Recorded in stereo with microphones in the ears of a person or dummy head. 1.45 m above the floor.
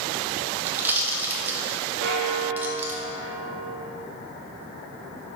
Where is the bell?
65° right (ahead or behind), 0.9 m.